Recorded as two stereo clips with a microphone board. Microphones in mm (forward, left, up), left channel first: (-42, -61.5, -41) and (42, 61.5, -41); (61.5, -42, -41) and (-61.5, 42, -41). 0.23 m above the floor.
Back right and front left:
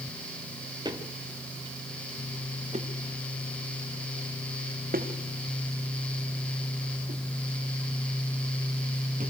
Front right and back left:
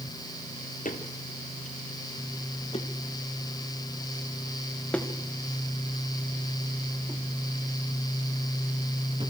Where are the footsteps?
5° right, 2.5 m; by 9.3 s 90° left, 3.5 m.